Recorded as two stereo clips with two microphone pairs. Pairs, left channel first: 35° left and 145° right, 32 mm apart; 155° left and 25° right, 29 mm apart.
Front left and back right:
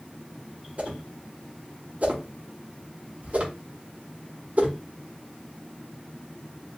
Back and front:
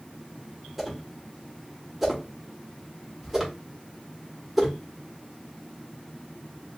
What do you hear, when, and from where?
0.8 s a whoosh: 110° right, 1.3 m